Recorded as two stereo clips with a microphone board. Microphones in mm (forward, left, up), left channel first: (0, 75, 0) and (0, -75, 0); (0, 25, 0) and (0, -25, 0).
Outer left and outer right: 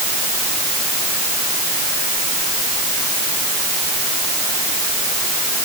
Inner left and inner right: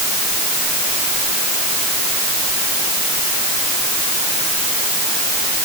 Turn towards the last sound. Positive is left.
No sound to turn to.